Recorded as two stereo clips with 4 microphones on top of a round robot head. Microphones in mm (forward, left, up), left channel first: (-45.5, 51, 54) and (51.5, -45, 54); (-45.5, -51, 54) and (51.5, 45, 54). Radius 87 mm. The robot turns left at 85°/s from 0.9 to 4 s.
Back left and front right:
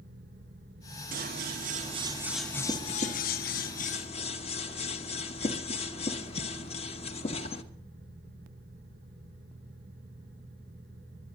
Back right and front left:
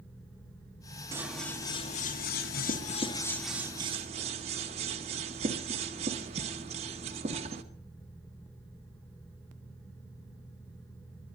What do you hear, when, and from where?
1.1 s scissors: 25° right, 1.3 m; by 7.6 s 90° left, 1.3 m